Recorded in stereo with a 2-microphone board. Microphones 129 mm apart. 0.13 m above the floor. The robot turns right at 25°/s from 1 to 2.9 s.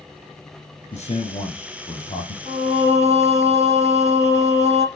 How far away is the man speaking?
About 5.5 m.